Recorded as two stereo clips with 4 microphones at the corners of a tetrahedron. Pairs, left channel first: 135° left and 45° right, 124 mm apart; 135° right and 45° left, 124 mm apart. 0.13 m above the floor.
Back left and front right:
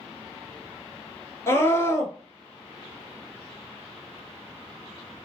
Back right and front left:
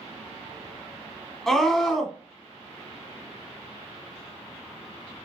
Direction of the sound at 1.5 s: 145° left.